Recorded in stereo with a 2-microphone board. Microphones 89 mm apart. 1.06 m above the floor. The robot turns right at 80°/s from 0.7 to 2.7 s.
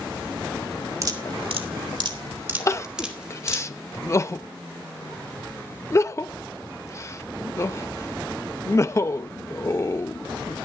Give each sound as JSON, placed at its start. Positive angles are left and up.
{"t": 1.0, "sound": "dripping", "side_deg": -35, "distance_m": 2.0}
{"t": 2.7, "sound": "crying", "side_deg": 35, "distance_m": 0.5}